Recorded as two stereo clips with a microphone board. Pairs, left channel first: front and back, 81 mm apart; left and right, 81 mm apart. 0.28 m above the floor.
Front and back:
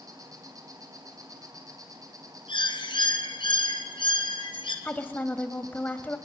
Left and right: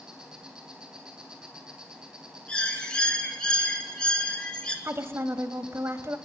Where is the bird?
10° left, 2 m.